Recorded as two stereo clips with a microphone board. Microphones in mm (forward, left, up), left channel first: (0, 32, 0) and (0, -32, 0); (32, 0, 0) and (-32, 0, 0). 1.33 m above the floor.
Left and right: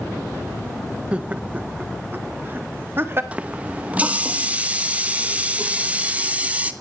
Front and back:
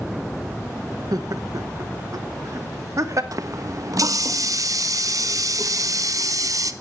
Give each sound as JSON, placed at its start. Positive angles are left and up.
{"t": 1.1, "sound": "laughter", "azimuth_deg": -165, "distance_m": 0.9}
{"t": 3.3, "sound": "a running tap", "azimuth_deg": -160, "distance_m": 1.0}